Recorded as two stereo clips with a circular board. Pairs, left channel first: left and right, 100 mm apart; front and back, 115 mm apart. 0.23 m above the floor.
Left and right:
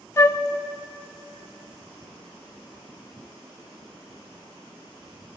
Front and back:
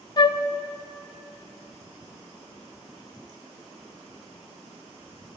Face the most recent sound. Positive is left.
turn(degrees=35)